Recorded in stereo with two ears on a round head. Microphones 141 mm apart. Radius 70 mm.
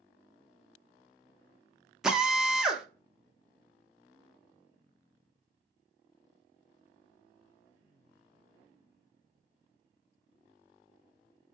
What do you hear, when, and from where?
2.0 s a drill: 5° right (ahead or behind), 0.5 m